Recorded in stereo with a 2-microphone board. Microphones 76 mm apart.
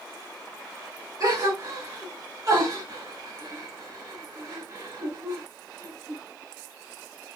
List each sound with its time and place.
1.2 s a gasp: 50° right (ahead or behind), 1.8 m